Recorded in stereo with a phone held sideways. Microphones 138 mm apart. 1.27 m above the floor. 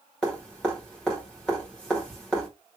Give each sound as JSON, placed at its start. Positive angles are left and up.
{"t": 0.2, "sound": "dripping", "side_deg": 5, "distance_m": 1.9}